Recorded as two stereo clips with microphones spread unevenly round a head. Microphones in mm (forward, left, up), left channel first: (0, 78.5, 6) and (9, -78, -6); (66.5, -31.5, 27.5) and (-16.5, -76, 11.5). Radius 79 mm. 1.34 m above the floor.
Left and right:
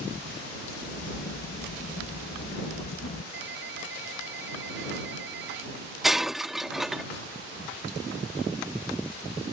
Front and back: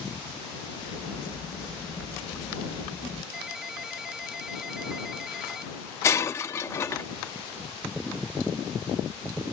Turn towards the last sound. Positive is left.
turn(degrees=5)